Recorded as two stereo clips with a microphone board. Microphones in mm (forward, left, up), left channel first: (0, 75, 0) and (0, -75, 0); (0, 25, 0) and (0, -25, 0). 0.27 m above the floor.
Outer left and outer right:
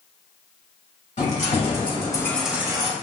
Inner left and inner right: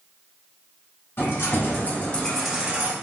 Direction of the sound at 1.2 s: 55° left (ahead or behind).